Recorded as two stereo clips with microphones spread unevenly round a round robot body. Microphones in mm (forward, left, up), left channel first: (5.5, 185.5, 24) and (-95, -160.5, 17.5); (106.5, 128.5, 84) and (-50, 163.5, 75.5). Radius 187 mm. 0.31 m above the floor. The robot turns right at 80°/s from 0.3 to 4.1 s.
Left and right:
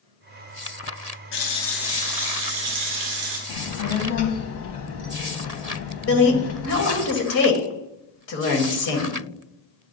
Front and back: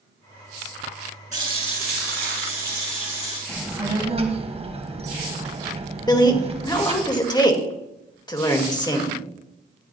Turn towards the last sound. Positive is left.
turn(degrees=45)